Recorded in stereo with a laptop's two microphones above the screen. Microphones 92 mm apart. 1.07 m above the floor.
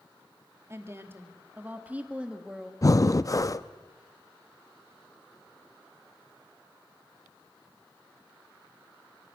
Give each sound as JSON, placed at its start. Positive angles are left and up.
{"t": 0.7, "sound": "a woman speaking", "side_deg": -30, "distance_m": 2.5}
{"t": 2.8, "sound": "breathing", "side_deg": 40, "distance_m": 0.5}